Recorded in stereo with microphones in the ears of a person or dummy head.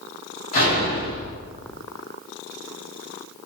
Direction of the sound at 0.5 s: 50° left (ahead or behind).